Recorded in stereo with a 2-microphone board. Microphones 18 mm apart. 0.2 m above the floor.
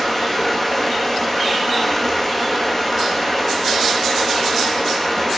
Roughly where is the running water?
Centre.